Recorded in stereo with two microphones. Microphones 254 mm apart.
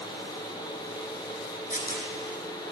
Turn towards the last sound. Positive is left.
turn(degrees=35)  # may be behind; listen again after turning